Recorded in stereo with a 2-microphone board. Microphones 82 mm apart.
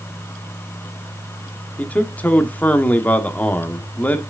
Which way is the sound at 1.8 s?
20° left (ahead or behind).